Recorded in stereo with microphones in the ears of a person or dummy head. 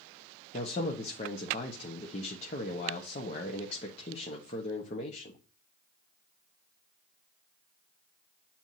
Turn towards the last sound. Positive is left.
turn(degrees=35)  # may be behind; listen again after turning